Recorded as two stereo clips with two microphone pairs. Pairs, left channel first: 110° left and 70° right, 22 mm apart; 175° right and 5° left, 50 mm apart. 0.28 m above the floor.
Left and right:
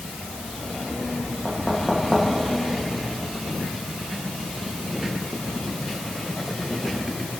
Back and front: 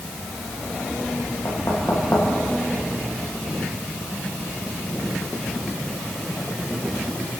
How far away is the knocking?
About 9.5 m.